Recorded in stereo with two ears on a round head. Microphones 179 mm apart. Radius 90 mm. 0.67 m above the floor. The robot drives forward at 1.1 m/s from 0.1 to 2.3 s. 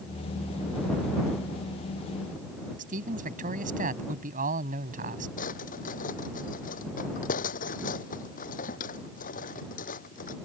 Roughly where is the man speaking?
Right.